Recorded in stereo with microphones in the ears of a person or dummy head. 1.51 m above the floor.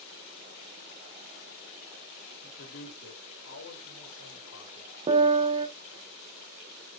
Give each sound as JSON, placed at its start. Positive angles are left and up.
{"t": 2.4, "sound": "a man speaking", "side_deg": 50, "distance_m": 2.0}
{"t": 5.1, "sound": "a piano", "side_deg": -25, "distance_m": 0.8}